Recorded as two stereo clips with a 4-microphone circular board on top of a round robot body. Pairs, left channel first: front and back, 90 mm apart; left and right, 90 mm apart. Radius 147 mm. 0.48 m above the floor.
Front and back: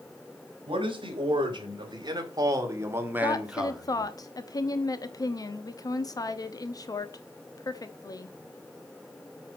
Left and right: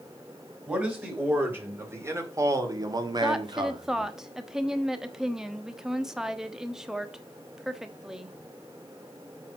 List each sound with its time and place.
0.7 s a man speaking: 160° right, 3.5 m; by 4.1 s 80° right, 2 m
3.2 s a woman speaking: 10° right, 1.2 m